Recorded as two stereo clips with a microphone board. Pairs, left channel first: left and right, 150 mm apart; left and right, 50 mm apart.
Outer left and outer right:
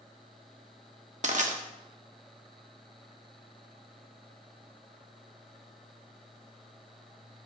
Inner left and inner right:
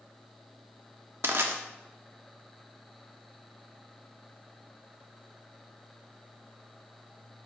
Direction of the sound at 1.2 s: 55° right (ahead or behind).